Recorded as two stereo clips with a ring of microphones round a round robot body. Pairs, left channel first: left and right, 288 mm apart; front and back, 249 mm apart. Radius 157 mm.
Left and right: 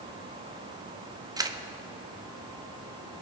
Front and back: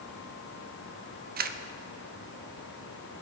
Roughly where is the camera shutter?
Behind.